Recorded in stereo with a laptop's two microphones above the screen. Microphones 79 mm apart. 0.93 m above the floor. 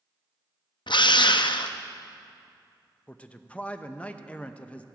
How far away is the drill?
About 0.5 m.